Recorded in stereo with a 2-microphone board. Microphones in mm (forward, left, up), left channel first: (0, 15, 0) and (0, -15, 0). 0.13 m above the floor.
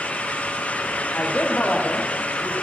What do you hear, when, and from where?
1.1 s a man speaking: 55° left (ahead or behind), 6.5 m